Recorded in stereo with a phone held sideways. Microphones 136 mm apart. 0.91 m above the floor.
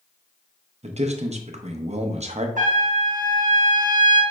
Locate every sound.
0.8 s a man speaking: 55° right (ahead or behind), 0.6 m
2.6 s a trumpet: 70° right (ahead or behind), 0.9 m